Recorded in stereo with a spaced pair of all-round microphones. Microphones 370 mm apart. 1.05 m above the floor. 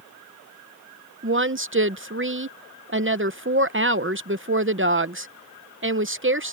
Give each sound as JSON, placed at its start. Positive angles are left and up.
{"t": 1.2, "sound": "a woman speaking", "side_deg": -35}